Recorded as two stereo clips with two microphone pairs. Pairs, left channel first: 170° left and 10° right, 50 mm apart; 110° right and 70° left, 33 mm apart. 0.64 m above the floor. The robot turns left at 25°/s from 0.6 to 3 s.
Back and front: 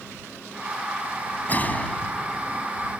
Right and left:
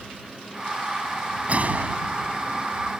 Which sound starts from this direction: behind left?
A gunshot, at 1.5 s.